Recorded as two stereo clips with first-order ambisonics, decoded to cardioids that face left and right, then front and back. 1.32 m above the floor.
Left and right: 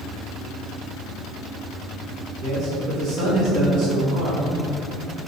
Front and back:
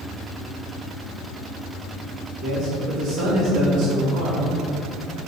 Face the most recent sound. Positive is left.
turn(degrees=-130)